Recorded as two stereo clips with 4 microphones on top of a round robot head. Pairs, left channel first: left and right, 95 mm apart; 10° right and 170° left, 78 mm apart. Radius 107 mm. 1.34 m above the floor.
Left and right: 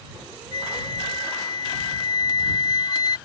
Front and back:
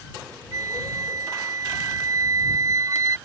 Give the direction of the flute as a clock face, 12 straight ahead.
8 o'clock.